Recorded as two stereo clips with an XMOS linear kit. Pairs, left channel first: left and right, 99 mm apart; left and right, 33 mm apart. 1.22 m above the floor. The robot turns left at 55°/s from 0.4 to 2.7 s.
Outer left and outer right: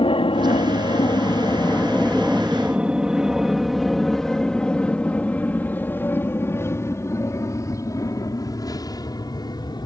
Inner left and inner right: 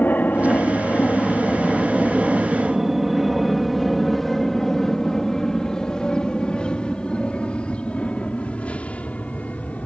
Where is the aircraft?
60° left (ahead or behind); by 9.9 s 45° left (ahead or behind).